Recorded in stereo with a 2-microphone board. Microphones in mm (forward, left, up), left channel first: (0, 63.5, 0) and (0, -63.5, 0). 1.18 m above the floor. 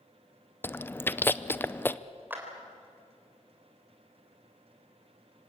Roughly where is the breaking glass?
I don't hear breaking glass.